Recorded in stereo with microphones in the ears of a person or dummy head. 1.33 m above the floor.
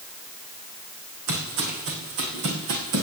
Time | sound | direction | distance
1.3 | footsteps | 70° right (ahead or behind) | 4 m